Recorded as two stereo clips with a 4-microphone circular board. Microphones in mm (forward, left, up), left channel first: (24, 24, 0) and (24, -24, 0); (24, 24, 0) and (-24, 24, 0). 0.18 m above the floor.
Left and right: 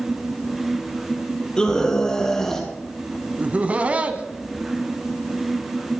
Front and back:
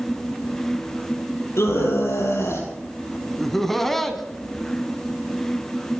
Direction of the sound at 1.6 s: 15° left.